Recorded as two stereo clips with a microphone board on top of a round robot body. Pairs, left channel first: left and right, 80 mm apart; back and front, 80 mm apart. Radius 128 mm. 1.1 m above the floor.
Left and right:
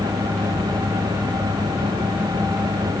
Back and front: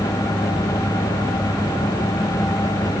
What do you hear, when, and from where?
Only background noise.